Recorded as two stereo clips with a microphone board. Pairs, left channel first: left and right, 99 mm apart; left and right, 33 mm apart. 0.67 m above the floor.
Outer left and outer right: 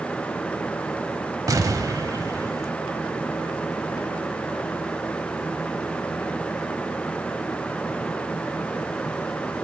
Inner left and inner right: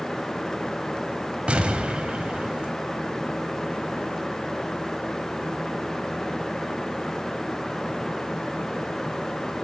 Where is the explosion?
35° right (ahead or behind), 1.2 m.